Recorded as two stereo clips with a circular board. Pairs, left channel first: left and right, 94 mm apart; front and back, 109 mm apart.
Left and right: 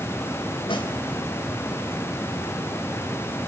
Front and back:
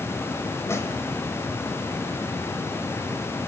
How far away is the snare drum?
About 3.5 m.